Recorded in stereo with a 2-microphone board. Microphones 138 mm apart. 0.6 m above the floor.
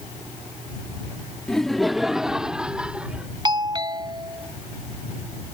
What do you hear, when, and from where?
1.5 s laughter: 5° left (ahead or behind); by 3.3 s 10° right (ahead or behind)
3.5 s a doorbell: 30° right (ahead or behind)